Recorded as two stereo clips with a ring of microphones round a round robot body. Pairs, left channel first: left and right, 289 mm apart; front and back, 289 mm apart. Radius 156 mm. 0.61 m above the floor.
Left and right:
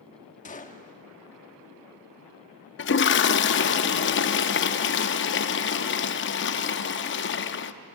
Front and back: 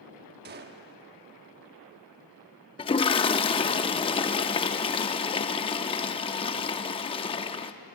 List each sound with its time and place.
0.5 s a gunshot: 140° left, 1.1 m
2.8 s a toilet flushing: 65° left, 0.6 m